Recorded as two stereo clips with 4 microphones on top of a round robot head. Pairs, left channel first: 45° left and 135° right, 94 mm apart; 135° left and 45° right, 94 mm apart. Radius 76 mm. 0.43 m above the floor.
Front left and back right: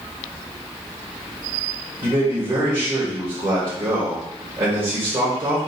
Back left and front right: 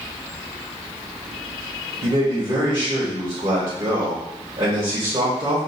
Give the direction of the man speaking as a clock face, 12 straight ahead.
3 o'clock.